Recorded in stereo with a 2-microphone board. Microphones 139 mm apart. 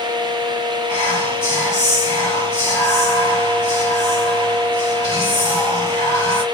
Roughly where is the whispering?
Centre.